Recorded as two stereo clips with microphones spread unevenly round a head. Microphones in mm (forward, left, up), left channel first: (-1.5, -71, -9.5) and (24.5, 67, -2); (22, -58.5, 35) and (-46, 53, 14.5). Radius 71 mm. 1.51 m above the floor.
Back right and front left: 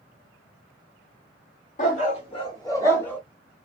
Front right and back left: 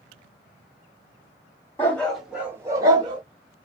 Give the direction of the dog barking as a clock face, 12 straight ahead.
4 o'clock.